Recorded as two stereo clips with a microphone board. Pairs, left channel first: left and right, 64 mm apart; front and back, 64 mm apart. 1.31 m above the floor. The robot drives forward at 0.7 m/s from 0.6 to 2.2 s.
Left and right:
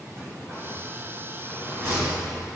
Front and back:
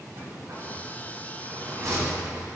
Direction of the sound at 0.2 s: 135° right.